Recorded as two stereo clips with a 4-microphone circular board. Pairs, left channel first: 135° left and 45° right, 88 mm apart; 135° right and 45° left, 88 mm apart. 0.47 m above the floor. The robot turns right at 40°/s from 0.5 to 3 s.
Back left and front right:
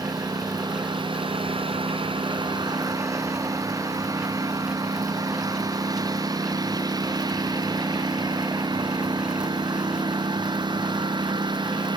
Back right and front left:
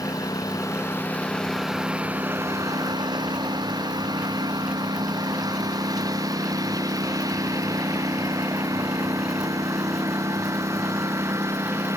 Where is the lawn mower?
85° right; by 12.0 s 15° right.